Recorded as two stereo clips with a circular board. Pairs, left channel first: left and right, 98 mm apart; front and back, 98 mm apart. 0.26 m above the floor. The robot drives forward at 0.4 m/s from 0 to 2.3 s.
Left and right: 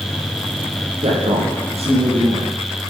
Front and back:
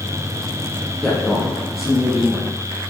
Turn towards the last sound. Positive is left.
turn(degrees=-95)